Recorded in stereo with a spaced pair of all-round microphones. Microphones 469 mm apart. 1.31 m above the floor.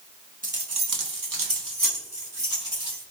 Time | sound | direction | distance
0.4 | keys jangling | 20° right (ahead or behind) | 0.5 m